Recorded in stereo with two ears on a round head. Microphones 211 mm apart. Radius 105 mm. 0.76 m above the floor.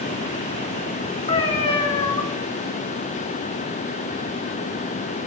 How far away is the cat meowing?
About 0.6 m.